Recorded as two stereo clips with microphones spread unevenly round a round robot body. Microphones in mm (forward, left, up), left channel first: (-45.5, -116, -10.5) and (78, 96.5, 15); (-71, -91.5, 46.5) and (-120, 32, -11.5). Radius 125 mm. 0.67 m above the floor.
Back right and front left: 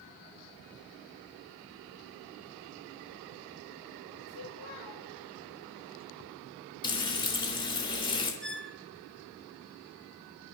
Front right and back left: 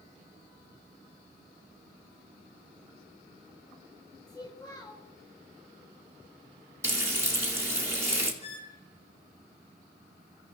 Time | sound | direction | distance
4.3 | a child speaking | 140° right | 3.5 m
6.8 | frying | 170° left | 3 m
8.4 | a squeak | 30° right | 1.5 m